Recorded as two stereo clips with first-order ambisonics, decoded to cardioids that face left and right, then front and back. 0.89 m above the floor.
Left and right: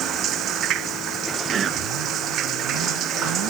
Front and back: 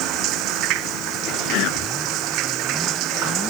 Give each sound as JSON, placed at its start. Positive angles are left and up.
{"t": 0.0, "sound": "running water", "azimuth_deg": -140}
{"t": 1.5, "sound": "whispering", "azimuth_deg": -30}